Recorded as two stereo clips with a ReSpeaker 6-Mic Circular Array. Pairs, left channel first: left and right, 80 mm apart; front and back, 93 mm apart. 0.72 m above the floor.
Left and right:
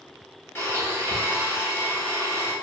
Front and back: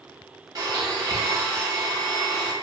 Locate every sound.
0.6 s a blender: 140° left, 0.9 m